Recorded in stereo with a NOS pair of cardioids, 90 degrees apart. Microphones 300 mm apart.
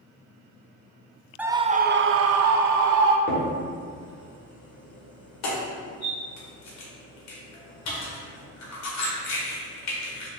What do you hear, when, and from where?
1.4 s a scream: 5° right, 0.5 m; by 3.2 s 75° right, 1.0 m
3.3 s a crack: 60° left, 2 m